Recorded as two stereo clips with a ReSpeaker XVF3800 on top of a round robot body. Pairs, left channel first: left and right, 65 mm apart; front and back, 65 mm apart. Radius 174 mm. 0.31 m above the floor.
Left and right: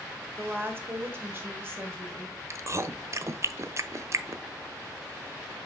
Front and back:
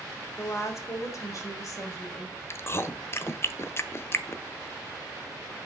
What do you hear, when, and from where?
0.4 s a woman speaking: 40° right, 1.3 m; by 2.4 s 35° right, 2.5 m
2.5 s chewing: 50° right, 0.7 m